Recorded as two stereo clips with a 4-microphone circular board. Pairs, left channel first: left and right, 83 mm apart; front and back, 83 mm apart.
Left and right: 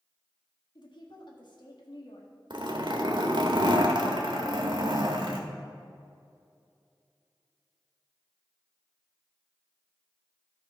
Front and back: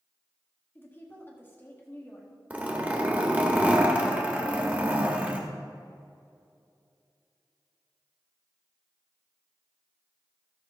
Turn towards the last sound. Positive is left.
turn(degrees=-110)